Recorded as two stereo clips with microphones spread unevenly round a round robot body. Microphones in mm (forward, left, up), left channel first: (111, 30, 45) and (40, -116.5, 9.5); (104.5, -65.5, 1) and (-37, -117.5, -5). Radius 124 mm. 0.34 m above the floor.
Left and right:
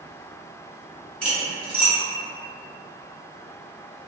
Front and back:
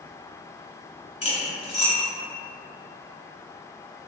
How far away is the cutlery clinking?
About 1.7 m.